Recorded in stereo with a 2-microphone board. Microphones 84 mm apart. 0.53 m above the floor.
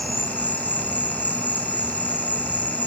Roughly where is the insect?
Right.